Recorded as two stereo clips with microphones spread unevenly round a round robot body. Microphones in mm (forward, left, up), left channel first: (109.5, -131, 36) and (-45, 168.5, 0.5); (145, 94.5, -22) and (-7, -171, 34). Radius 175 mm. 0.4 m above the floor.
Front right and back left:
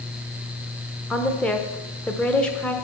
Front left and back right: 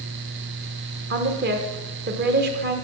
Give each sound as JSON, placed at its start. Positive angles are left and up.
{"t": 1.1, "sound": "a woman speaking", "azimuth_deg": -160, "distance_m": 0.9}